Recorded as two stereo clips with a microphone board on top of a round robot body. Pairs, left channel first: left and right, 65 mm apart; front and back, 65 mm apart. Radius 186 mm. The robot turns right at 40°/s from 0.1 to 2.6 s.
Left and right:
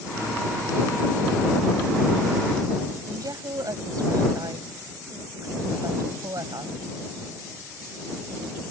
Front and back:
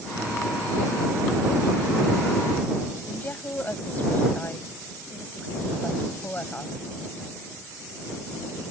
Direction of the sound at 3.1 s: 65° right.